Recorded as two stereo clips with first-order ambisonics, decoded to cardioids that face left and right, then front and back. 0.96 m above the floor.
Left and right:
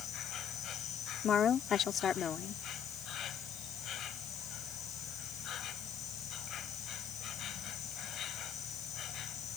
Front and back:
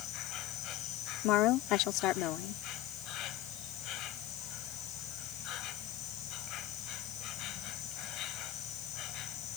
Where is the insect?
40° left.